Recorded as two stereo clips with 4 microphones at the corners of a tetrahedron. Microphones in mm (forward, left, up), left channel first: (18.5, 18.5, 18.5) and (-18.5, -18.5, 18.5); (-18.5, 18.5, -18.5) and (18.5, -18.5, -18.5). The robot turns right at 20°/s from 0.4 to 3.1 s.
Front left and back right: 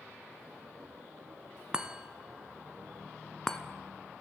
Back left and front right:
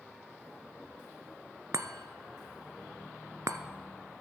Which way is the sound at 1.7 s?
60° right.